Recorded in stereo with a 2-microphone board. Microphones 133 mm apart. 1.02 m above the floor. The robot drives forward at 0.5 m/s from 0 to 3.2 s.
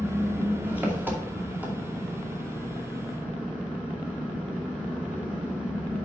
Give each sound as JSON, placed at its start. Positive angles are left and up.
{"t": 0.0, "sound": "an engine running", "side_deg": -15, "distance_m": 1.6}